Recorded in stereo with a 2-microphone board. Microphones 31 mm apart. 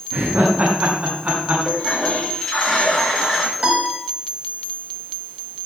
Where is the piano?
40° right (ahead or behind), 4 m.